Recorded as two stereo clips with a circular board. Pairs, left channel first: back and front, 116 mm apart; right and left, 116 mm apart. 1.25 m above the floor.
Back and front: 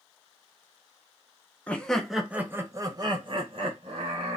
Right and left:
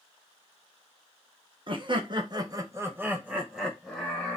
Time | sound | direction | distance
1.7 | laughter | 105° left | 0.8 m